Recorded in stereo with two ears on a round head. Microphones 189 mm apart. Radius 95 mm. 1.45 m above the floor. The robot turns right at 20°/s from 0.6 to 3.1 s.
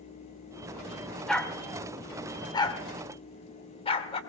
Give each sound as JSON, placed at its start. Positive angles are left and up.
{"t": 1.3, "sound": "a dog barking", "side_deg": 5, "distance_m": 1.4}